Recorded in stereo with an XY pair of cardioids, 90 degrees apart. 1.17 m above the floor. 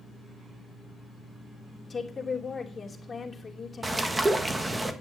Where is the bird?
25° right, 1.5 m.